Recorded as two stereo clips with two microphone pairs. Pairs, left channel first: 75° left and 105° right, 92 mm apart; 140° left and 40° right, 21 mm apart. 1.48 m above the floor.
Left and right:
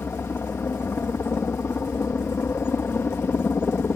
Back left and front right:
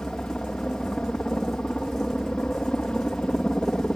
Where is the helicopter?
135° left.